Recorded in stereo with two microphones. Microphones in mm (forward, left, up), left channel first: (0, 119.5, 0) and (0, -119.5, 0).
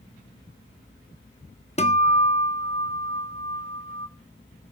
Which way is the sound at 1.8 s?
25° left (ahead or behind).